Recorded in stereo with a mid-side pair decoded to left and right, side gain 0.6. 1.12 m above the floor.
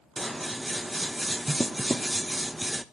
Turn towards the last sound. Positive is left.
turn(degrees=-5)